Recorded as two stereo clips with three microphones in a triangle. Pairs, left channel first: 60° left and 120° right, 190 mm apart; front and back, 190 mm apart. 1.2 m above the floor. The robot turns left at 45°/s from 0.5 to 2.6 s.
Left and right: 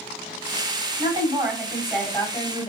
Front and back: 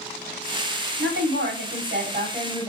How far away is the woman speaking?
About 2.5 m.